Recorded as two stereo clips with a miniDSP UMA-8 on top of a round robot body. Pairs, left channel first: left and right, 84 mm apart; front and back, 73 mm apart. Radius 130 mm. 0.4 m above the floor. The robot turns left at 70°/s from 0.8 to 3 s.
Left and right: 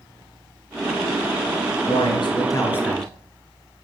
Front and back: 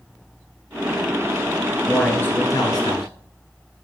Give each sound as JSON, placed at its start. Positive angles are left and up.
{"t": 1.9, "sound": "a man speaking", "azimuth_deg": 90, "distance_m": 3.0}